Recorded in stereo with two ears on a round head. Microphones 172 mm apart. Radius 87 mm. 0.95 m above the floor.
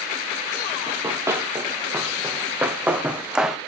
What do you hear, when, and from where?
0.9 s running footsteps: 15° right (ahead or behind), 5 m; by 3.6 s 5° right (ahead or behind), 2.5 m